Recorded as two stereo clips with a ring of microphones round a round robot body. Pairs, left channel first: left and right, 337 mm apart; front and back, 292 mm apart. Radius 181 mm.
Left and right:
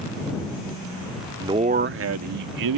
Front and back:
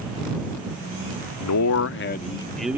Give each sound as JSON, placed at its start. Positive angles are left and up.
{"t": 1.4, "sound": "a man speaking", "azimuth_deg": -10}